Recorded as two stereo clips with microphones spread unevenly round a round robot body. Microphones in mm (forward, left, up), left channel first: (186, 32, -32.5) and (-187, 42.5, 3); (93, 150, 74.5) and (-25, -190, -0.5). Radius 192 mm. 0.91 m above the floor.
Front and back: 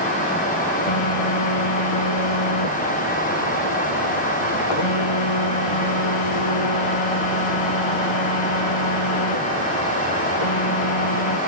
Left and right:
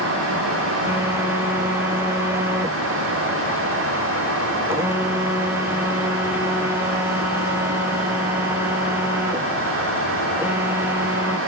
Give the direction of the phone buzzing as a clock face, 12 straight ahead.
1 o'clock.